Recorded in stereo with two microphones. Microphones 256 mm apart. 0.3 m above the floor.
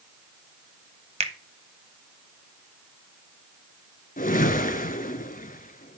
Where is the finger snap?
25° right (ahead or behind), 1.2 m.